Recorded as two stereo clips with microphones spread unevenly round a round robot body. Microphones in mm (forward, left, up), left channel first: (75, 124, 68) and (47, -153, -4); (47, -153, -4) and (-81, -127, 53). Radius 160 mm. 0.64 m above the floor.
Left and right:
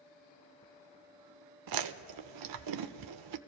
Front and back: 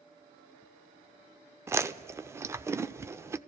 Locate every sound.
1.7 s chewing: 125° right, 0.5 m